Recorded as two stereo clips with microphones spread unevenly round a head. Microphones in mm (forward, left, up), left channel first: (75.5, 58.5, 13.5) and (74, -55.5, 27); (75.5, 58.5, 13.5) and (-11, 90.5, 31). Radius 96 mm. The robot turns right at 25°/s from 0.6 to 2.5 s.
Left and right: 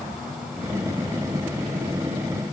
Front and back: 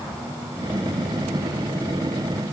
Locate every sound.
Only background noise.